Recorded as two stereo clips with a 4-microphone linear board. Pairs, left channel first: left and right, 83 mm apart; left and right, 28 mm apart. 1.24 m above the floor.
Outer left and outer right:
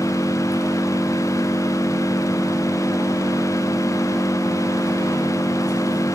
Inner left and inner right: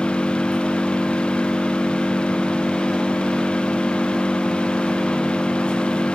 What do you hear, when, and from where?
0.0 s an engine running: 50° left (ahead or behind), 6 m